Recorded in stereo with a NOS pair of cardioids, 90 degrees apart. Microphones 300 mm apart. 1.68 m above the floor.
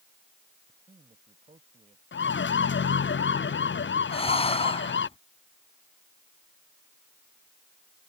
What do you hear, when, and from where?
0.7 s a man speaking: 20° right
2.1 s a siren: 40° left
4.1 s breathing: 20° left